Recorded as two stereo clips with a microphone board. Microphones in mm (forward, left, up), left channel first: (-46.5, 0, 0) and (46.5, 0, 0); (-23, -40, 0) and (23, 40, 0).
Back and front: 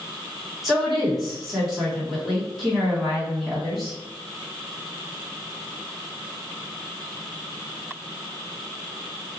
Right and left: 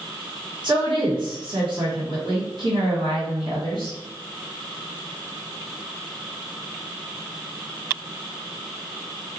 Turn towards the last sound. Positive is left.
turn(degrees=85)